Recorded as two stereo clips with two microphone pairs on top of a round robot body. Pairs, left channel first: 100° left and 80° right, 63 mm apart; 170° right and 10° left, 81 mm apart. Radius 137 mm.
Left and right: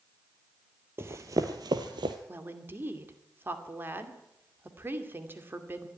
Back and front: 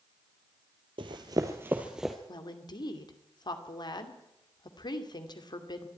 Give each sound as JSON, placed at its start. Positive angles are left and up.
{"t": 1.0, "sound": "running footsteps", "azimuth_deg": -20, "distance_m": 1.2}
{"t": 2.3, "sound": "a woman speaking", "azimuth_deg": -140, "distance_m": 2.5}